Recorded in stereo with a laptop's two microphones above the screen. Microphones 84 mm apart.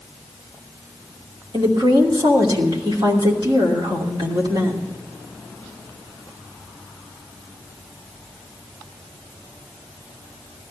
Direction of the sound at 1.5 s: 60° right (ahead or behind).